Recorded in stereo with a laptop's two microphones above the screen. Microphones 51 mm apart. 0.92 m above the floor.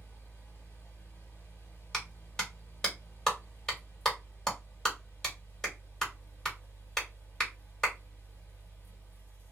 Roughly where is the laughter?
No laughter in this recording.